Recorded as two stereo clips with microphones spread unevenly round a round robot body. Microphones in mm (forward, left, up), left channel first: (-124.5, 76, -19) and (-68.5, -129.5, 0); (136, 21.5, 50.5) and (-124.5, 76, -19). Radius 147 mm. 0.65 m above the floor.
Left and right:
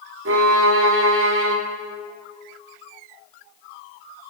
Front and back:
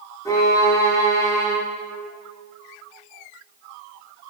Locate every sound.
0.2 s a violin: 95° right, 0.9 m